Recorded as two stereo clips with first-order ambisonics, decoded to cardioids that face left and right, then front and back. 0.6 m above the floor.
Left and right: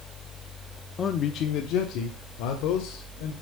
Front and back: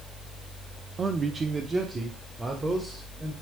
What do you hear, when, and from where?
1.0 s a man speaking: 130° left, 0.6 m; by 3.3 s 105° left, 1.9 m